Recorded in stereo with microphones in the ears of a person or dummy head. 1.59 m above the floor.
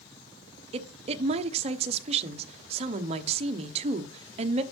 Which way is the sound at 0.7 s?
35° right (ahead or behind).